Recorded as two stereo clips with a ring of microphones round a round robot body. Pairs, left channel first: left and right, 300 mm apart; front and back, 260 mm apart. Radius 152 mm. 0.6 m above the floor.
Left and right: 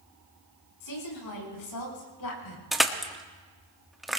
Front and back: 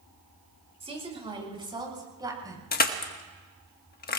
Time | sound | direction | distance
0.8 | a woman speaking | 110° left | 7.5 m
2.7 | crushing | straight ahead | 1.3 m